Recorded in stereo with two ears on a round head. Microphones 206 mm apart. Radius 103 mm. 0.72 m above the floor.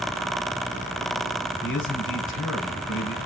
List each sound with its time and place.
1.6 s a man speaking: 60° left (ahead or behind), 5.5 m